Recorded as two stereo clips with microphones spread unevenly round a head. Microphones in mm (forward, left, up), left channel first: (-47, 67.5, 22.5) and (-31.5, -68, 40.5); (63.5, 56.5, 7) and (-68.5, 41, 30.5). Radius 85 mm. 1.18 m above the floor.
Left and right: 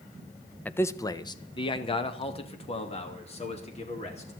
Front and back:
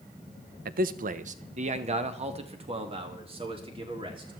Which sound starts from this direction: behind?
A man speaking, at 0.7 s.